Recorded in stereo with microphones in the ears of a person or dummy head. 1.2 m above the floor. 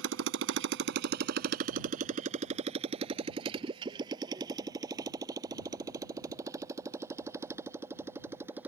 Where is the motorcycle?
75° right (ahead or behind); by 8.7 s 15° right (ahead or behind).